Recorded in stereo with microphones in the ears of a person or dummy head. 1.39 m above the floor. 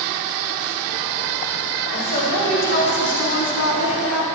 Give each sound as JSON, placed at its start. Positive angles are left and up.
{"t": 1.9, "sound": "a woman speaking", "side_deg": 40, "distance_m": 4.5}